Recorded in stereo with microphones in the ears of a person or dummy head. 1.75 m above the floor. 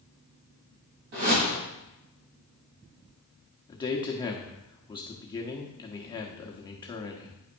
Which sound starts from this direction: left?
A man speaking, at 3.7 s.